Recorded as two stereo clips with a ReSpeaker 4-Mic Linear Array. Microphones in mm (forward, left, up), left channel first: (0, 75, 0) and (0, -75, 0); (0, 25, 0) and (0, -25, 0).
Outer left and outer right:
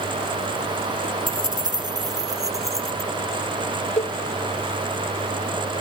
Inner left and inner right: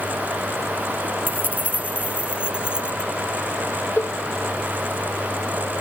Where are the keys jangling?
35° right (ahead or behind); by 3.1 s 20° right (ahead or behind).